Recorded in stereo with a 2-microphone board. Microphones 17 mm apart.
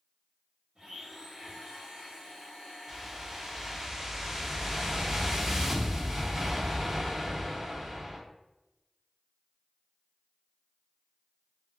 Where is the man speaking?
I don't hear a man speaking.